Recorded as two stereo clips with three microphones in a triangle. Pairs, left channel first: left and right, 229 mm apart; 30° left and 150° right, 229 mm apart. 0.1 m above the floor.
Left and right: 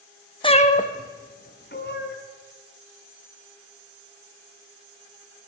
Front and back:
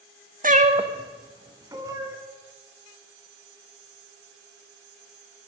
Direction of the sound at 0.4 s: 160° left.